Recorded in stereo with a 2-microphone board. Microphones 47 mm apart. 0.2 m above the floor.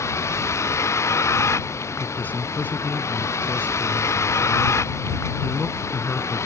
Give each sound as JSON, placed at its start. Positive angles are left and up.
{"t": 0.0, "sound": "a vehicle", "side_deg": 85}
{"t": 2.0, "sound": "a man speaking", "side_deg": 40}